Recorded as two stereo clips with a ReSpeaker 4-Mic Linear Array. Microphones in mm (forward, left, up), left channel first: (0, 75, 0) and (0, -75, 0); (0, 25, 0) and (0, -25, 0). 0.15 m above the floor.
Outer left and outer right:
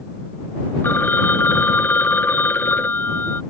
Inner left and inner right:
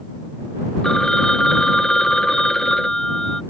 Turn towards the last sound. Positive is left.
turn(degrees=15)  # may be behind; listen again after turning